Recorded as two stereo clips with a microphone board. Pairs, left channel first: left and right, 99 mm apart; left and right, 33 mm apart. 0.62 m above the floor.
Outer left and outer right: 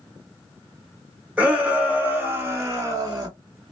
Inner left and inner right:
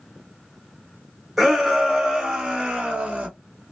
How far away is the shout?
About 1.8 m.